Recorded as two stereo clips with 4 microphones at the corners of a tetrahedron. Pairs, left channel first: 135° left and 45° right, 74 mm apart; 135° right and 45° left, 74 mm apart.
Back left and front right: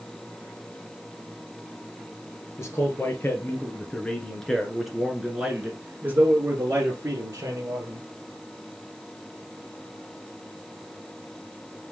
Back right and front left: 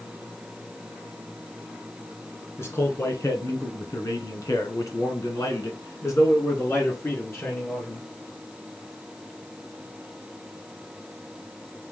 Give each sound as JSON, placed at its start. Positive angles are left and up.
{"t": 2.6, "sound": "a man speaking", "azimuth_deg": 175, "distance_m": 1.9}